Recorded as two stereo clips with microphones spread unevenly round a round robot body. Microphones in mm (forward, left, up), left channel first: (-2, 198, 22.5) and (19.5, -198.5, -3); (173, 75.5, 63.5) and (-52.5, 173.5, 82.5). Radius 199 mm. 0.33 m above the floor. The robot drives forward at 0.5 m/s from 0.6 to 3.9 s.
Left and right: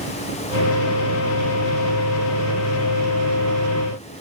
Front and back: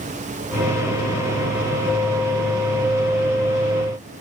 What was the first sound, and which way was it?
Only background noise.